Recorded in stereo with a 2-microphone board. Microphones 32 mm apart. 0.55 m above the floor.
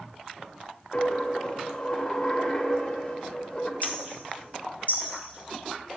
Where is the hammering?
55° left (ahead or behind), 1.5 m.